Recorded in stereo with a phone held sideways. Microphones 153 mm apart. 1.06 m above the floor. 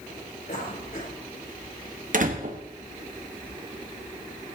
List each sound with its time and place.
0.5 s a cough: 75° left (ahead or behind), 6.5 m
2.1 s a door slam: 60° right (ahead or behind), 1.4 m